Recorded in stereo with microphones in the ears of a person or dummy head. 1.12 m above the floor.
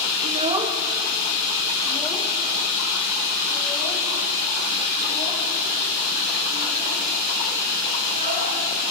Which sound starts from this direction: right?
A child speaking, at 0.2 s.